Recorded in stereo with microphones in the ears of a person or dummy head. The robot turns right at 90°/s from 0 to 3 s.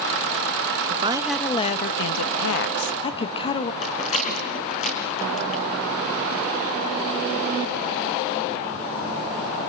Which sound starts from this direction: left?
A rattle, at 3.8 s.